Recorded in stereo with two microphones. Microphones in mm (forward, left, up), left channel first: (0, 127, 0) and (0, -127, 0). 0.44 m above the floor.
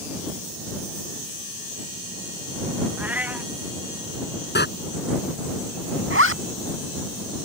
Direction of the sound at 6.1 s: 55° right (ahead or behind).